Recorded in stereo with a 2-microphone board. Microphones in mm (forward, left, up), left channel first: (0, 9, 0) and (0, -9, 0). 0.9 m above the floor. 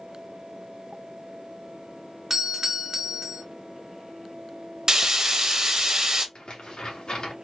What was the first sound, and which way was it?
A doorbell, 20° right (ahead or behind).